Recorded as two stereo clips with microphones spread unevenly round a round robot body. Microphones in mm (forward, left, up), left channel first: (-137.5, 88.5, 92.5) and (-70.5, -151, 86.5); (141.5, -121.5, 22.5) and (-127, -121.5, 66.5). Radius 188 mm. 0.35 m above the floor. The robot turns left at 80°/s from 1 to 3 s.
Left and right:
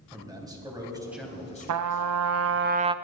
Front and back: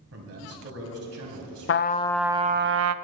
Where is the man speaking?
150° right, 3 m; by 2.7 s 75° left, 3 m.